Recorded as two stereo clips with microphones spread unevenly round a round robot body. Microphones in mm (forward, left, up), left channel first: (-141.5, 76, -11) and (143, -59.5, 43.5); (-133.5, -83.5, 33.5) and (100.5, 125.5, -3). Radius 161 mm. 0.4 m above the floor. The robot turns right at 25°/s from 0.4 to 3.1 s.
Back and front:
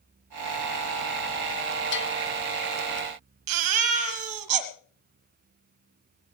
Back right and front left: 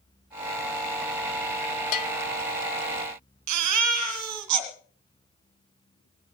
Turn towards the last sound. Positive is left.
turn(degrees=0)